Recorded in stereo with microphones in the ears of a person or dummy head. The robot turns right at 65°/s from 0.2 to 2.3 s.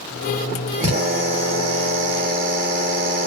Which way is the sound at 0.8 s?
145° right.